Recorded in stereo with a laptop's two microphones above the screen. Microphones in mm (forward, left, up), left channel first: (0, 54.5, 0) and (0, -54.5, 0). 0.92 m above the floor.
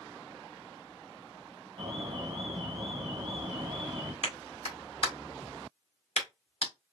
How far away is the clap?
About 1.8 m.